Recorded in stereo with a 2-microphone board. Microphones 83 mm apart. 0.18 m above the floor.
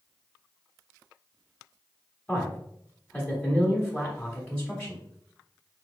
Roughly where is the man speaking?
Centre.